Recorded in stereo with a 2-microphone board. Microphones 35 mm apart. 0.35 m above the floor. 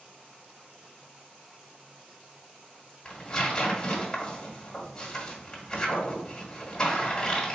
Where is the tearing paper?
15° left (ahead or behind), 1.5 m.